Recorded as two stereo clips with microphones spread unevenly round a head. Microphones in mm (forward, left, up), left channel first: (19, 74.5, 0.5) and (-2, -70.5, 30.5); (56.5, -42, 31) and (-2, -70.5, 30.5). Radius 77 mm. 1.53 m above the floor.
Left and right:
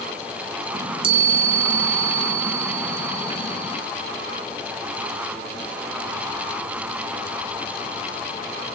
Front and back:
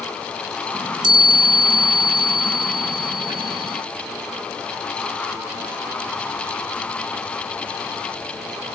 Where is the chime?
155° right, 1.6 m.